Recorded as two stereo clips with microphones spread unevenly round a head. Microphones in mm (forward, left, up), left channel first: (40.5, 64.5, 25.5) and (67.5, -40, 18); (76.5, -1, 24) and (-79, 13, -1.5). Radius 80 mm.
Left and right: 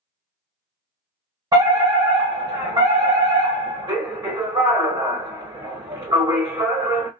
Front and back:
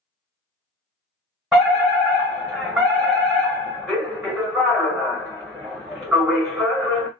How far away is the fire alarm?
About 1.8 m.